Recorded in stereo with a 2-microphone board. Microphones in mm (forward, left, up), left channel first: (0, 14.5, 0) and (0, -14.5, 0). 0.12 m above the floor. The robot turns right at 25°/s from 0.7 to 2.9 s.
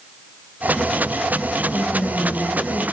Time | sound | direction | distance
1.7 | a woman speaking | 45° left (ahead or behind) | 4 m